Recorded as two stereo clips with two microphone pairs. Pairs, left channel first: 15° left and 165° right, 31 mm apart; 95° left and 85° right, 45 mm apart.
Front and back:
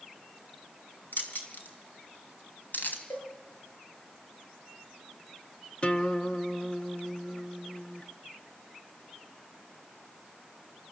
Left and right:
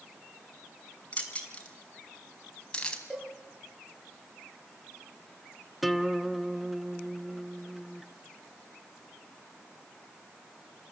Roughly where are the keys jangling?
Ahead left.